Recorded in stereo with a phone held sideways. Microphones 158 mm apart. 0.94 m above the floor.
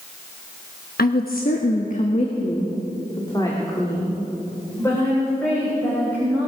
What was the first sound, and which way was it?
A woman speaking, 70° left (ahead or behind).